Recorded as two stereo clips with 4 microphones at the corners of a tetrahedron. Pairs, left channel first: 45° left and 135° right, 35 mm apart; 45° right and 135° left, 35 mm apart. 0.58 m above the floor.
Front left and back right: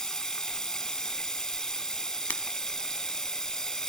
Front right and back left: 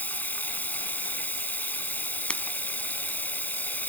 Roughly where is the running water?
Ahead right.